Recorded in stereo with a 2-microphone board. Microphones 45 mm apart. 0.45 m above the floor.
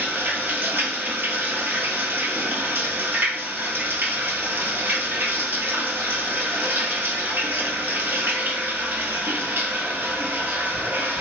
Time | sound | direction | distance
0.0 | running water | 55° right (ahead or behind) | 0.7 m